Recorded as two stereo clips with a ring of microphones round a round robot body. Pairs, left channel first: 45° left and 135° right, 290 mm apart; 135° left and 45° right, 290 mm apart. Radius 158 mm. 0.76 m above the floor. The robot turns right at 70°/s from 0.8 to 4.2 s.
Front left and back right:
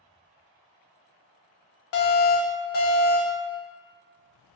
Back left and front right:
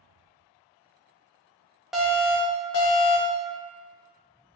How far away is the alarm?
About 0.5 m.